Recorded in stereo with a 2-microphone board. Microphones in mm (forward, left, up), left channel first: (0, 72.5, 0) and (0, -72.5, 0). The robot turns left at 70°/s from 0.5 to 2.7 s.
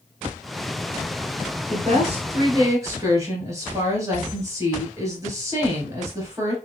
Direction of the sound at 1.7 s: 75° right.